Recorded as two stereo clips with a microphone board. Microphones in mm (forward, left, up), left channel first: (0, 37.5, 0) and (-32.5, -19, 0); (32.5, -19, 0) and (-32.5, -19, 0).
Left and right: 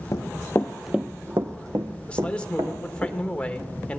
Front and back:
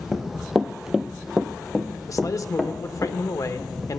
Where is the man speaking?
10° right, 1.1 m.